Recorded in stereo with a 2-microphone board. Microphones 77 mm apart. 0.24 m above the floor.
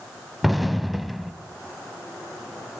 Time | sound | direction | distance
0.4 | an explosion | centre (ahead or behind) | 0.7 m